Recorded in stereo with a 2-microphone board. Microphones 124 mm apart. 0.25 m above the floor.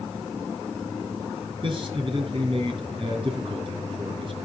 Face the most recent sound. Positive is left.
turn(degrees=-45)  # may be behind; listen again after turning